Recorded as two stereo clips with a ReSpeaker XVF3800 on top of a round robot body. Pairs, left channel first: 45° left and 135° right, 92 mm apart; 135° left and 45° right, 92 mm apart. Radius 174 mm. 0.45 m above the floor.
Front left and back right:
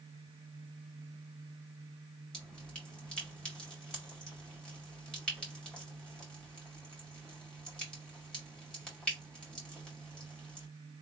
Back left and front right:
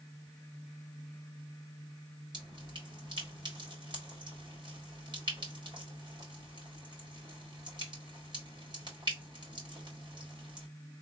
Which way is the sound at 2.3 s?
35° right.